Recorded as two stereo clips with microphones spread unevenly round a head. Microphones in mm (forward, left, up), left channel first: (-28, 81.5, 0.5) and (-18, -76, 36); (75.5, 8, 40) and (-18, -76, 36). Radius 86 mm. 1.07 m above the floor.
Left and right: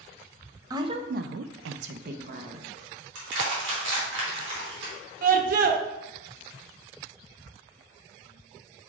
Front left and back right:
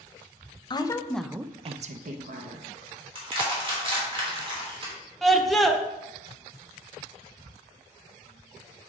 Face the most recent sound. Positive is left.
turn(degrees=-50)